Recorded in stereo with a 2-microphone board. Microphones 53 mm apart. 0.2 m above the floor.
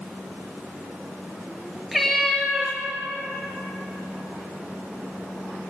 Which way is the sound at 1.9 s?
Centre (ahead or behind).